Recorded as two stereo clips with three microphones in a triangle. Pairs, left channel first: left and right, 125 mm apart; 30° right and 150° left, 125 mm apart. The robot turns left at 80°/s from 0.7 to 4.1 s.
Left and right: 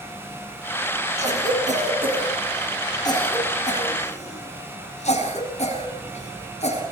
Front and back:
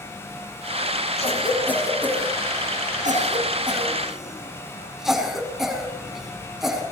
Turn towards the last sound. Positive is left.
turn(degrees=65)